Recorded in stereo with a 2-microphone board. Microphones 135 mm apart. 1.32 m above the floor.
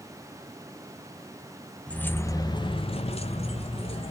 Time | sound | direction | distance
1.9 | keys jangling | 10° left (ahead or behind) | 0.7 m